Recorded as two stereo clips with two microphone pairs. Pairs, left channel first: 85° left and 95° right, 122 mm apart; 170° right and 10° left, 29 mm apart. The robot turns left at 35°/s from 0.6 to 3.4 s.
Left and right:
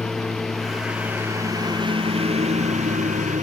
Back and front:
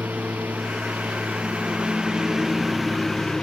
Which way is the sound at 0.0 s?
Straight ahead.